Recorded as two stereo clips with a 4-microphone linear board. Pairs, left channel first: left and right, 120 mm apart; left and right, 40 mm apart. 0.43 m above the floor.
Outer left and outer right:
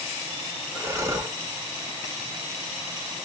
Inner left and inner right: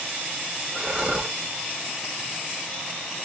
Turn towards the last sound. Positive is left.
turn(degrees=-25)  # may be behind; listen again after turning